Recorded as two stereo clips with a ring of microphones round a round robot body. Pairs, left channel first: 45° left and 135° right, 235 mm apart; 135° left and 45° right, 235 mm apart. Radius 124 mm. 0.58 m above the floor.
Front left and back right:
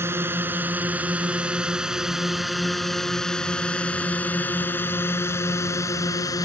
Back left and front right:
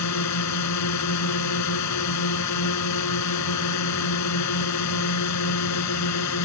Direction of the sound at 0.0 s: 145° left.